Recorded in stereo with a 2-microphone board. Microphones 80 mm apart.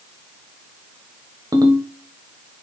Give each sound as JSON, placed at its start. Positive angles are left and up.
{"t": 1.5, "sound": "a ringtone", "side_deg": -50, "distance_m": 1.4}